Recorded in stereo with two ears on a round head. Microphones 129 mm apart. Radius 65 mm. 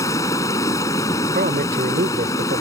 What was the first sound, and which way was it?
Running water, 25° left (ahead or behind).